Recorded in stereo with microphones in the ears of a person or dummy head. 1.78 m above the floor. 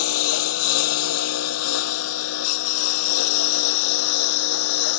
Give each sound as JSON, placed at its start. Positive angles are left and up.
{"t": 0.0, "sound": "a lawn mower", "side_deg": 75}